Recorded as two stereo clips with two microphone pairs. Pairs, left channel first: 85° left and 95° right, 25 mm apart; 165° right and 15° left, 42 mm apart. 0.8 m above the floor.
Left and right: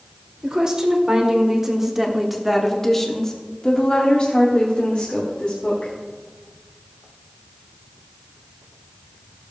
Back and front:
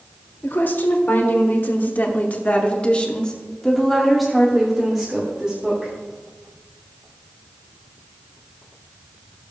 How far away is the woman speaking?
About 2.0 m.